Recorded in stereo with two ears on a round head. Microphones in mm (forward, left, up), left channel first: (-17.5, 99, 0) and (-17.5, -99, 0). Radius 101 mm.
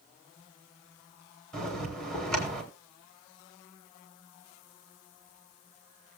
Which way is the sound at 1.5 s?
5° left (ahead or behind).